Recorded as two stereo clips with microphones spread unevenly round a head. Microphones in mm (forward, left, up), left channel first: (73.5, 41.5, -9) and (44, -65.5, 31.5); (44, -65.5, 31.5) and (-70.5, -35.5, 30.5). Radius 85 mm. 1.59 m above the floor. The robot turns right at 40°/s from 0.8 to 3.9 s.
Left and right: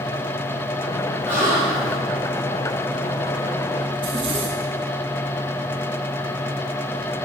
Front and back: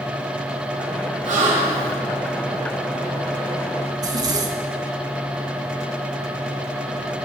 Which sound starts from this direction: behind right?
A zipper, at 3.9 s.